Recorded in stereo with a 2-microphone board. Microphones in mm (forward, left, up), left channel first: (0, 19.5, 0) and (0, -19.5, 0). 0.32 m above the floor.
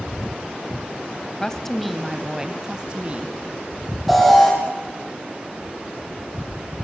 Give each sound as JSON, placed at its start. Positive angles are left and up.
{"t": 1.4, "sound": "a woman speaking", "side_deg": 15, "distance_m": 1.8}
{"t": 4.1, "sound": "an alarm", "side_deg": 0, "distance_m": 8.5}